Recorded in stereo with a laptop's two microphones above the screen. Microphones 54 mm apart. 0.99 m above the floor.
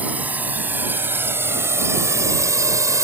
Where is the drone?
30° right (ahead or behind); by 3.1 s 75° right (ahead or behind).